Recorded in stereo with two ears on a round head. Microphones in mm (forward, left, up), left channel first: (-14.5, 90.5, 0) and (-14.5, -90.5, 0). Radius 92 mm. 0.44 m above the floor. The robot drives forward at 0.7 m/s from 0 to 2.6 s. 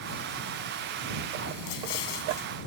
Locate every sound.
1.7 s an explosion: 80° left; by 2.5 s 70° left (ahead or behind)